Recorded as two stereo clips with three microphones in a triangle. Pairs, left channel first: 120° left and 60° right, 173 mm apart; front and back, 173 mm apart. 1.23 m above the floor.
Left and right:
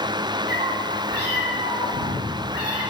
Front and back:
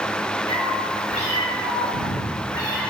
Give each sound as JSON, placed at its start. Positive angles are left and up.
{"t": 0.5, "sound": "a cat meowing", "azimuth_deg": -55, "distance_m": 3.0}